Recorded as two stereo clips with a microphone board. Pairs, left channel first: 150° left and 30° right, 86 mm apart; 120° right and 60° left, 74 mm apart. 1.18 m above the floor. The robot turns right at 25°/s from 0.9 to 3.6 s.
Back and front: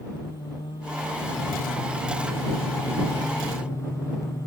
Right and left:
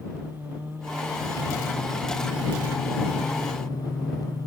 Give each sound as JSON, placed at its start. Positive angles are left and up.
{"t": 0.1, "sound": "singing", "azimuth_deg": 135}